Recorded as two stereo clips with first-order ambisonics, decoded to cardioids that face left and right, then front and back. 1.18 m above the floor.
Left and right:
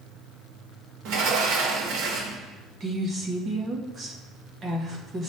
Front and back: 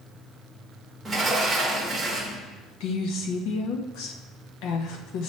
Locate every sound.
1.1 s a sliding door: 100° right, 1.3 m
2.8 s a woman speaking: 25° right, 1.2 m